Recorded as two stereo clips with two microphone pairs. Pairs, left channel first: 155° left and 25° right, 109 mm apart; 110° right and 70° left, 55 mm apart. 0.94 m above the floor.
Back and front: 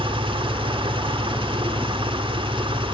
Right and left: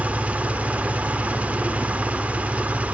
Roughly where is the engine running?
Ahead.